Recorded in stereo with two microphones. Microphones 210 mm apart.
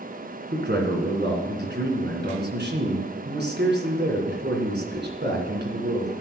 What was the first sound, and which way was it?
A man speaking, 55° right (ahead or behind).